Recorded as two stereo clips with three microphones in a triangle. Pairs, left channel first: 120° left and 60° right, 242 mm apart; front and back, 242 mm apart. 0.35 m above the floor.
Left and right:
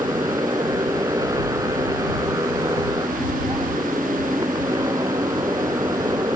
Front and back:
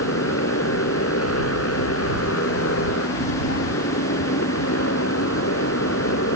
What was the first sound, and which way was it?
A motorcycle, 15° left.